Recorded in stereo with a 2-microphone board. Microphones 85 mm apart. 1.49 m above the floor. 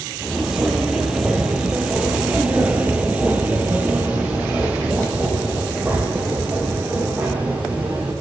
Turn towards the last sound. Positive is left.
turn(degrees=-15)  # may be behind; listen again after turning